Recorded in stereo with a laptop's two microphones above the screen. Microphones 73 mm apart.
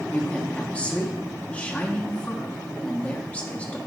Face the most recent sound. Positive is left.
turn(degrees=20)  # may be behind; listen again after turning